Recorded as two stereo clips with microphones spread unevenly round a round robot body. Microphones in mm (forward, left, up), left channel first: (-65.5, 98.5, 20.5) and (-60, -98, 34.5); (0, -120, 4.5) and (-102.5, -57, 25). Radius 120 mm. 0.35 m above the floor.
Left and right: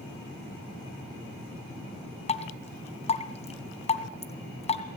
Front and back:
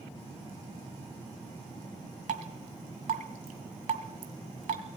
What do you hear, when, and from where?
2.3 s dripping: 145° left, 2 m